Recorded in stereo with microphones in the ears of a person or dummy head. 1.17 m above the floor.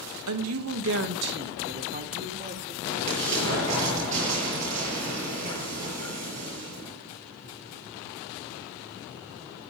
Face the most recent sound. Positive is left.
turn(degrees=-35)  # may be behind; listen again after turning